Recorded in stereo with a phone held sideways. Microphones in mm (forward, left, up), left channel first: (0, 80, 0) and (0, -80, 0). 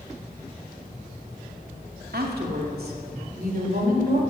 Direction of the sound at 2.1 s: 80° right.